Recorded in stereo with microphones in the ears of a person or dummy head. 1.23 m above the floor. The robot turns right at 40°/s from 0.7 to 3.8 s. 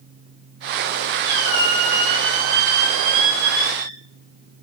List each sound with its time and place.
1.2 s a squeak: 120° right, 1.0 m; by 4.0 s 15° right, 1.0 m